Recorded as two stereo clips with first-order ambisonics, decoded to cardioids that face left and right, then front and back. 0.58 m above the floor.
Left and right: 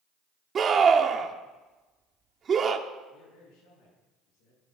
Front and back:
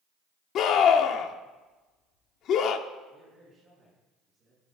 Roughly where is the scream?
Ahead right.